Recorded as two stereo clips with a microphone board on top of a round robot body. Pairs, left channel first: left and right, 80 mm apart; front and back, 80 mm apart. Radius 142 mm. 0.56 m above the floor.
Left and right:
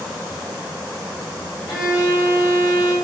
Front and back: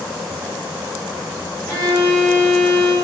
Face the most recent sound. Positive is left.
turn(degrees=70)